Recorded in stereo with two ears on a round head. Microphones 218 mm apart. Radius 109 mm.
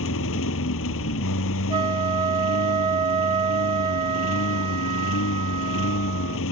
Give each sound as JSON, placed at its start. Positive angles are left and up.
{"t": 0.0, "sound": "a lawn mower", "side_deg": 60}
{"t": 1.7, "sound": "a flute", "side_deg": -20}